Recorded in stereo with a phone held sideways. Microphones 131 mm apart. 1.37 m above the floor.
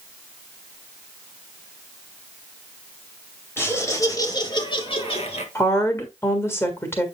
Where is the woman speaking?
20° left (ahead or behind), 1.7 m.